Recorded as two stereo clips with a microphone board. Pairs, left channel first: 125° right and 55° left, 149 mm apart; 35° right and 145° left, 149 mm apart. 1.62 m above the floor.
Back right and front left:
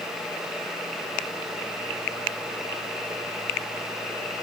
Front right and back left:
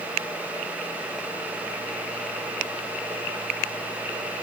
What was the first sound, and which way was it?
Only background noise.